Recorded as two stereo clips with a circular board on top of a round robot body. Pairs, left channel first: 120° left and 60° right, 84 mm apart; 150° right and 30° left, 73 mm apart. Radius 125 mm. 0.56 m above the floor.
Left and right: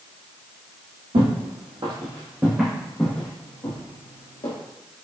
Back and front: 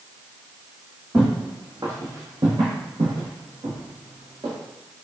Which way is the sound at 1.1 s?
40° right.